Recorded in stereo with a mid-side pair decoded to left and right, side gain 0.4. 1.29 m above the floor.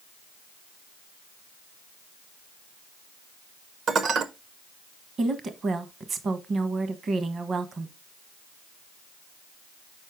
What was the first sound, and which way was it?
Dishes clattering, 65° right.